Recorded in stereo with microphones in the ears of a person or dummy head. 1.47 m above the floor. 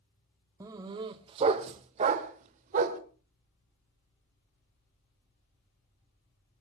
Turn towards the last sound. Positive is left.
turn(degrees=-40)  # may be behind; listen again after turning